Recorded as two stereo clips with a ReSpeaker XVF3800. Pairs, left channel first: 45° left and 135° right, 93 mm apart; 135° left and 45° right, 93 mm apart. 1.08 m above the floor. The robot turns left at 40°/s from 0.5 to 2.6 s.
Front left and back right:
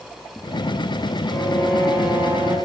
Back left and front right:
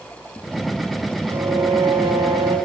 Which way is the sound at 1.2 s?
25° right.